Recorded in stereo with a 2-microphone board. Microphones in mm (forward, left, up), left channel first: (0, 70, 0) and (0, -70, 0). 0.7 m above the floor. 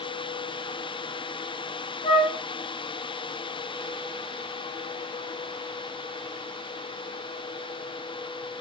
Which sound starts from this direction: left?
A flute, at 2.0 s.